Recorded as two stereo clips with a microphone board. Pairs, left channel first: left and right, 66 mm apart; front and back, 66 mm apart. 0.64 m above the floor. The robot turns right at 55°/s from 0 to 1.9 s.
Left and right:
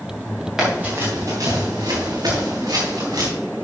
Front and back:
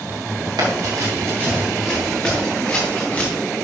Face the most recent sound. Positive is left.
turn(degrees=-70)